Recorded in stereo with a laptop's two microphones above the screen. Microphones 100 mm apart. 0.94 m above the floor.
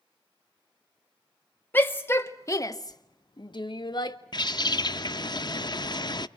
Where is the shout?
20° left (ahead or behind), 1.5 m; by 4.2 s 50° left (ahead or behind), 1.0 m.